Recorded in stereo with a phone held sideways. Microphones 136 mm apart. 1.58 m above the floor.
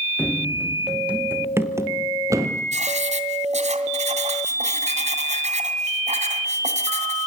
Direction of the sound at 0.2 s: 10° left (ahead or behind).